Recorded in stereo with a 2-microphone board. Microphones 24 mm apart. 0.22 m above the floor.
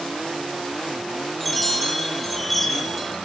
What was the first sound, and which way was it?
A chime, centre (ahead or behind).